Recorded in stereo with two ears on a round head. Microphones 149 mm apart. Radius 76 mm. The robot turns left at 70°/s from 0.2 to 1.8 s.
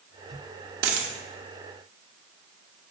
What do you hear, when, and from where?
0.8 s a dropped coin: 60° right (ahead or behind), 0.9 m; by 1.1 s 75° right (ahead or behind), 0.9 m